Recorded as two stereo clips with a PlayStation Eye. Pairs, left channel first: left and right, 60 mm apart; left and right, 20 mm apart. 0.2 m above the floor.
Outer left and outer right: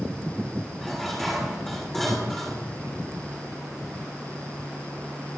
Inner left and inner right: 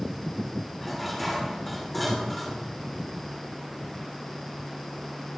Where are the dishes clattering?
5° left (ahead or behind), 6.5 m.